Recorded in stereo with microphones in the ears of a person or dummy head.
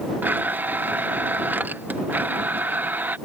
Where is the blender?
15° right (ahead or behind).